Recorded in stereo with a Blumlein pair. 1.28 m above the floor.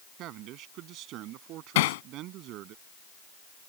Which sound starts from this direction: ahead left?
Hammering, at 1.8 s.